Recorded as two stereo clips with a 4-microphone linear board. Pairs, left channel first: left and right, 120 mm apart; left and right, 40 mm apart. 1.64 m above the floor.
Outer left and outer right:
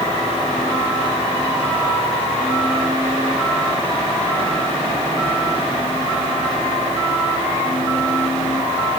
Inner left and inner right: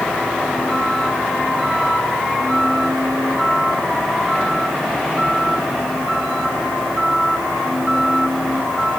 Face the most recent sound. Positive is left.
No sound to turn to.